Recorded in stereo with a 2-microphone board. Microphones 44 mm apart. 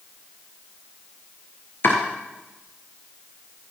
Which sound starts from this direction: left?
Chopping, at 1.8 s.